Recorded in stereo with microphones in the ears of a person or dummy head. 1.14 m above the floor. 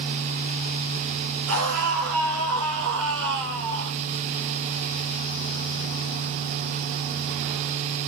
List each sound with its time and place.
1.5 s a scream: 85° right, 6.5 m; by 4.0 s 65° right (ahead or behind), 5 m